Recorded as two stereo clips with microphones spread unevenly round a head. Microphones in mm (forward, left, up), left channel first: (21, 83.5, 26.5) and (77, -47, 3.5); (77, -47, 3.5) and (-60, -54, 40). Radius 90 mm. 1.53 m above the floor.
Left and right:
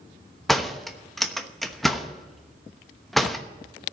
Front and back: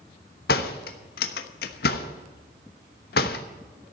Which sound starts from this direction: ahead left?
A door slam, at 0.5 s.